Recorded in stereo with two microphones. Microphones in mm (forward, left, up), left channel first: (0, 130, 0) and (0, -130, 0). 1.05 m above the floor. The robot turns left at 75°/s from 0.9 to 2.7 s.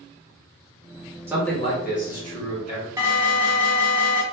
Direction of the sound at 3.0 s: 10° right (ahead or behind).